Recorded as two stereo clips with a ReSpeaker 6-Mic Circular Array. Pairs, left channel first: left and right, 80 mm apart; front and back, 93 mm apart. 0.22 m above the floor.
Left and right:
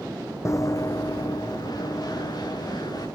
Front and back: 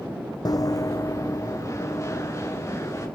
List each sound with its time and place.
0.5 s running footsteps: 40° left, 0.5 m; by 3.1 s 60° left, 3.5 m